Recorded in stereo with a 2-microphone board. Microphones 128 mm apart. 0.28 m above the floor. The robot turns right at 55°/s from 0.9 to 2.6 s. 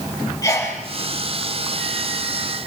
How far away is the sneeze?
About 6.5 m.